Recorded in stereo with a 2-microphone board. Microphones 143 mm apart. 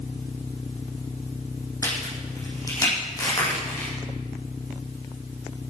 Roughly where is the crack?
Left.